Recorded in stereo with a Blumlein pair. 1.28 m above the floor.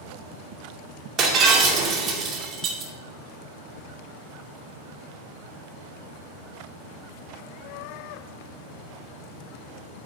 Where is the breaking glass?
30° right, 2 m.